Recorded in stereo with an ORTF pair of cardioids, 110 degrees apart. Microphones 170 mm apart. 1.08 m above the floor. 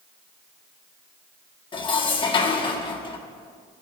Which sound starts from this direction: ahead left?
Dishes clattering, at 1.7 s.